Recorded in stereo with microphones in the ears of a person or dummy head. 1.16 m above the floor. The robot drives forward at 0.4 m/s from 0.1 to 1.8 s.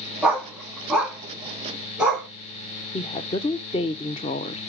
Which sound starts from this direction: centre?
A dog barking, at 0.2 s.